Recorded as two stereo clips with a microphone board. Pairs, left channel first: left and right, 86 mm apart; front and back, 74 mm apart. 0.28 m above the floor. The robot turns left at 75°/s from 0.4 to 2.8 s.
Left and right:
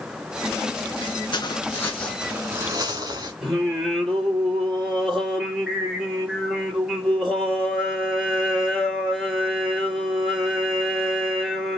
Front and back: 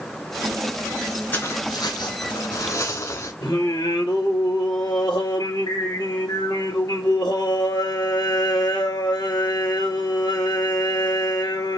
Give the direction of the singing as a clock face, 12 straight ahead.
12 o'clock.